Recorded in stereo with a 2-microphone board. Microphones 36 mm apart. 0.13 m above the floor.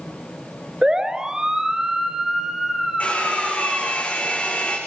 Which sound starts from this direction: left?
A hair dryer, at 3.0 s.